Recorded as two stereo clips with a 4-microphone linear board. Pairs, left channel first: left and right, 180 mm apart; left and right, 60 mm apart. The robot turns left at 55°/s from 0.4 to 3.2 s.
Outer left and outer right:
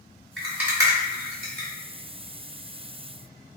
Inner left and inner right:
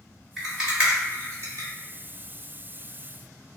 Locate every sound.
0.4 s a rattle: centre (ahead or behind), 1.6 m; by 1.7 s 70° right (ahead or behind), 1.6 m